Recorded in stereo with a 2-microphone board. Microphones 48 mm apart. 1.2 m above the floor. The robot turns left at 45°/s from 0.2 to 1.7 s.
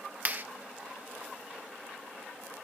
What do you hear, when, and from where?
0.2 s a clap: 35° right (ahead or behind), 0.9 m; by 0.4 s 45° right (ahead or behind), 0.9 m